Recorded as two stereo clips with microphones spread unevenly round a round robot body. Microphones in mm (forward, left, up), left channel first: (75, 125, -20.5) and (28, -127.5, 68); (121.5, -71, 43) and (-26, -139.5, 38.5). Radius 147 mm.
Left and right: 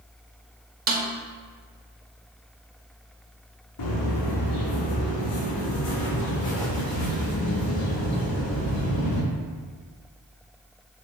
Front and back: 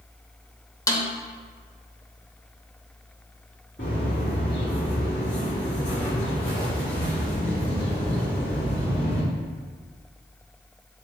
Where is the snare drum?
40° right, 0.9 m.